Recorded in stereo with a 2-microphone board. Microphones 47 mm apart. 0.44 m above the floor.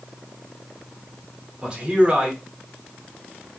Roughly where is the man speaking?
Right.